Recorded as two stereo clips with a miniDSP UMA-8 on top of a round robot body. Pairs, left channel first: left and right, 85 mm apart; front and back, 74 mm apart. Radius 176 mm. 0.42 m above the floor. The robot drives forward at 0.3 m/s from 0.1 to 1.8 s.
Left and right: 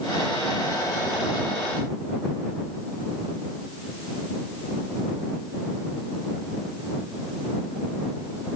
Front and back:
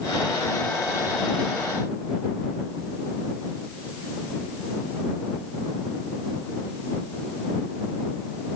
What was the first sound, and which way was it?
Only background noise.